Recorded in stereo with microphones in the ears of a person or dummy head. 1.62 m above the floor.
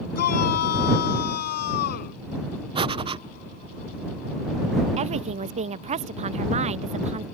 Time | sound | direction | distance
0.1 | a shout | 50° left (ahead or behind) | ?
2.8 | breathing | 25° right (ahead or behind) | ?
5.0 | a woman speaking | 35° right (ahead or behind) | ?